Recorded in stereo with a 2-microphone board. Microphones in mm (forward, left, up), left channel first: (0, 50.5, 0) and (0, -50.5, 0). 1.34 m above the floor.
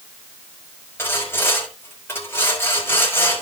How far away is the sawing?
About 5 m.